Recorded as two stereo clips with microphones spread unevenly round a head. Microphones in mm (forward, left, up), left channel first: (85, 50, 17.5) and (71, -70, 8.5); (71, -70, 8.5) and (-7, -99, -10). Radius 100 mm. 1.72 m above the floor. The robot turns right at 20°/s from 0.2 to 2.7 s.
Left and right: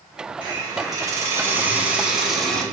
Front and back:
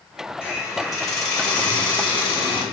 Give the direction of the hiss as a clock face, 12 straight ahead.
2 o'clock.